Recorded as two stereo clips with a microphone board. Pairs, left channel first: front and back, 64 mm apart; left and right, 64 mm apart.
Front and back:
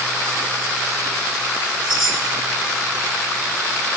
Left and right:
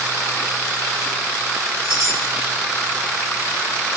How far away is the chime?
About 1.3 m.